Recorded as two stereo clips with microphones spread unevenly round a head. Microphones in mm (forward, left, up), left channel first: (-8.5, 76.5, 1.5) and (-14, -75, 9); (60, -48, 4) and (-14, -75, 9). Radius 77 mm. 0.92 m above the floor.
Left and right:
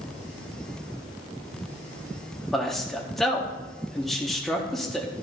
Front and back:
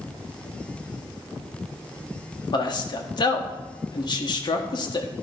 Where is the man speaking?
Straight ahead, 1.5 m.